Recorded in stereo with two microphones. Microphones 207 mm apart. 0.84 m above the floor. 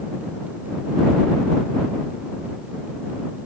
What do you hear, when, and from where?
Only background noise.